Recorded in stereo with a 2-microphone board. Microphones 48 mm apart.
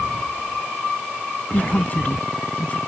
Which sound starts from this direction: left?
A woman speaking, at 1.5 s.